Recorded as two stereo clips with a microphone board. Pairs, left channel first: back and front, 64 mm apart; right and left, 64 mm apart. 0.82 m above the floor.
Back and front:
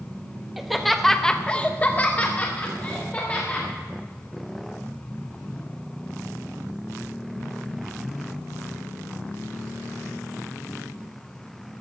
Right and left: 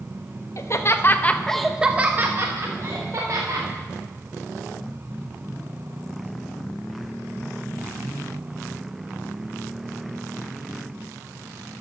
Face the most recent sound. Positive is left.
turn(degrees=115)